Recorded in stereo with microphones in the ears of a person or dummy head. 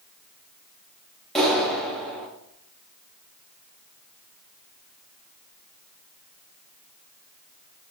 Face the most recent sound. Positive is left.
turn(degrees=0)  # may be behind; listen again after turning